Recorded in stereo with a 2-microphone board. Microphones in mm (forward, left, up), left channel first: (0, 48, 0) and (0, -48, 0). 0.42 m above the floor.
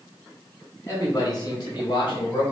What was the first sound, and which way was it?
A man speaking, 30° left (ahead or behind).